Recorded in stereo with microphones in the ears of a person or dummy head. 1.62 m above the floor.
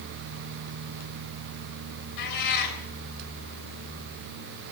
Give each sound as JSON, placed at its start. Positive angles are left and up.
{"t": 2.2, "sound": "a cat meowing", "side_deg": 60, "distance_m": 3.5}